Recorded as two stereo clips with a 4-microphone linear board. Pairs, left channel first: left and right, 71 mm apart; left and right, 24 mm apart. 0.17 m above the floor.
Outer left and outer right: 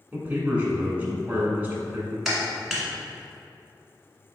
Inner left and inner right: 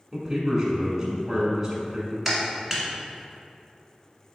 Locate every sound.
0.1 s a man speaking: 20° right (ahead or behind), 1.3 m
2.2 s a clap: centre (ahead or behind), 1.5 m